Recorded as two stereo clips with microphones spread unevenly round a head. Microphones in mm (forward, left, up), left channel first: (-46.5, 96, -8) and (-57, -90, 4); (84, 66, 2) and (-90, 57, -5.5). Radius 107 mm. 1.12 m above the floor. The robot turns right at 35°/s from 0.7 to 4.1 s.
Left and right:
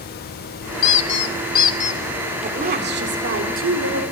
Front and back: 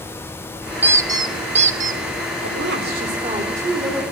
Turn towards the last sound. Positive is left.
turn(degrees=-85)